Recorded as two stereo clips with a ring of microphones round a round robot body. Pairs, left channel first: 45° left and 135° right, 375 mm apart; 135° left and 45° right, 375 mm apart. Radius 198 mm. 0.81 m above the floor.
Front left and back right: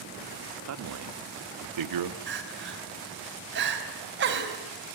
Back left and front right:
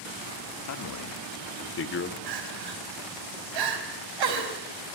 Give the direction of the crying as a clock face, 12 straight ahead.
2 o'clock.